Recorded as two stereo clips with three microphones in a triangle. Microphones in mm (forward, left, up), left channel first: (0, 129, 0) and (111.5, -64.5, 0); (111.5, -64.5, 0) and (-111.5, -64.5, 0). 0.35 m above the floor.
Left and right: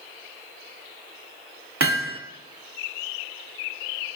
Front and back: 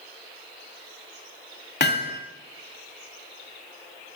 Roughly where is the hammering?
Ahead right.